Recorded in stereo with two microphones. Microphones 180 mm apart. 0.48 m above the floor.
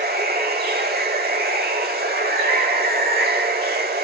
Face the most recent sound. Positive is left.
turn(degrees=-55)  # may be behind; listen again after turning